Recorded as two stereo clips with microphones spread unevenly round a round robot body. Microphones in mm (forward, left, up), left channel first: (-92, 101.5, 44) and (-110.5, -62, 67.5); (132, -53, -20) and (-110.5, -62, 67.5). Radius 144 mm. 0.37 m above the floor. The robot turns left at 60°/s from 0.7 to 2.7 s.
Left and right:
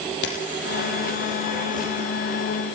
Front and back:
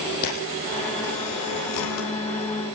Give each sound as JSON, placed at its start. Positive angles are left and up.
{"t": 0.2, "sound": "a camera shutter", "azimuth_deg": 60, "distance_m": 5.0}